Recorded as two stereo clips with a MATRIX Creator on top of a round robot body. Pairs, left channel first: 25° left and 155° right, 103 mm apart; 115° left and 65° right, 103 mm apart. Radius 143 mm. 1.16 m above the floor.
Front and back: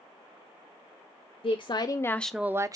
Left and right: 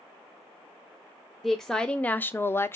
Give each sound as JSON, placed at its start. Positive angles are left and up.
{"t": 1.4, "sound": "a woman speaking", "azimuth_deg": 25, "distance_m": 0.9}